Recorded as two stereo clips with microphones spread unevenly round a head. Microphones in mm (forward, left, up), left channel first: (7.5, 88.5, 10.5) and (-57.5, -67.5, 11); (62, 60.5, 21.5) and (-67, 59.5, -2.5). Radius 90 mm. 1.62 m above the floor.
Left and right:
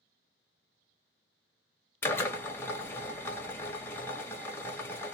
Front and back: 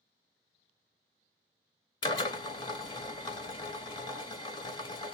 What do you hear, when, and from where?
2.0 s a drill: 5° right, 0.6 m